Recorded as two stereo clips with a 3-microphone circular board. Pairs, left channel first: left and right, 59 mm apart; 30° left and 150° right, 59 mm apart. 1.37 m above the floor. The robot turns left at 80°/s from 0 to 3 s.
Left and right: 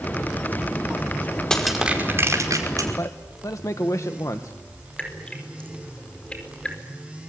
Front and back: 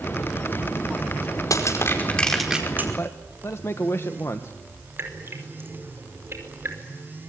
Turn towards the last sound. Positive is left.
turn(degrees=160)